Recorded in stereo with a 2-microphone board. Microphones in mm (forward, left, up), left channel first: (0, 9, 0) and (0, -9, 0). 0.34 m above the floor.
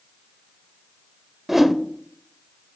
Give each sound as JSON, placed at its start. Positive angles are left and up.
{"t": 1.5, "sound": "a whoosh", "side_deg": -15, "distance_m": 0.6}